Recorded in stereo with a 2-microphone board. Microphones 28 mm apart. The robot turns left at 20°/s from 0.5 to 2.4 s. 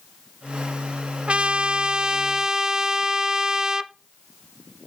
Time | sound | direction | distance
1.3 | a trumpet | 50° right (ahead or behind) | 0.7 m